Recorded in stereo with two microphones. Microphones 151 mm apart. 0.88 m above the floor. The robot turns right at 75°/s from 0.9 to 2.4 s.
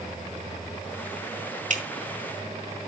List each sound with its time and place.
1.7 s dripping: 60° right (ahead or behind), 1.8 m; by 1.8 s 50° right (ahead or behind), 1.8 m